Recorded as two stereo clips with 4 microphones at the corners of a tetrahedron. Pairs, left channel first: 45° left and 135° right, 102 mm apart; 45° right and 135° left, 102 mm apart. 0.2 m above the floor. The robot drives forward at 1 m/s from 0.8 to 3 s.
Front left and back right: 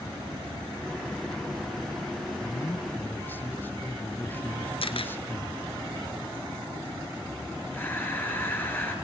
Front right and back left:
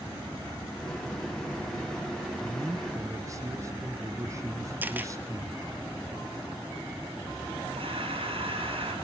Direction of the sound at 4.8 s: 65° left.